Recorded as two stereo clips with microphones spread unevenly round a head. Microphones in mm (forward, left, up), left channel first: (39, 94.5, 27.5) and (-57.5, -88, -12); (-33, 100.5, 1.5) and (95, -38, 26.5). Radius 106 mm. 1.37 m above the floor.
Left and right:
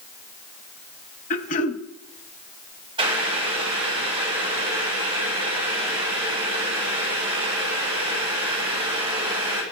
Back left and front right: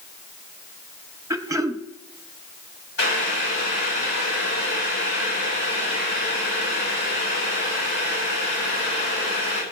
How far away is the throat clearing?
About 1.1 m.